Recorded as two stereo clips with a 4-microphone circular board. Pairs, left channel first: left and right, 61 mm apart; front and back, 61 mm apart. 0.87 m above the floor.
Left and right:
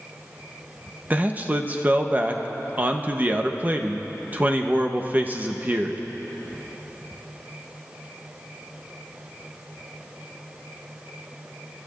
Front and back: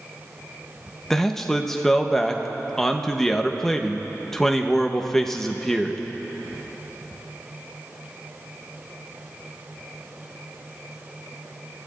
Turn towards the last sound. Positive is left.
turn(degrees=-75)